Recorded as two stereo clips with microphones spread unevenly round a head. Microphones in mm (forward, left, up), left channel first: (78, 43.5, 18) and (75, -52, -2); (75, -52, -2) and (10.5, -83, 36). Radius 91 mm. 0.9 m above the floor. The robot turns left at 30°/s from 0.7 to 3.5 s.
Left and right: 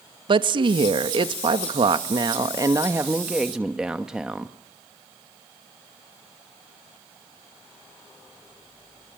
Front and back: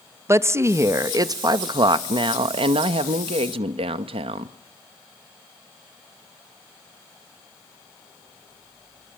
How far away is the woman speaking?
About 1.0 m.